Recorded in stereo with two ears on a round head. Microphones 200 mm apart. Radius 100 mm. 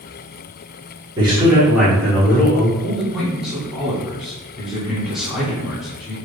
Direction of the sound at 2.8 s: Centre (ahead or behind).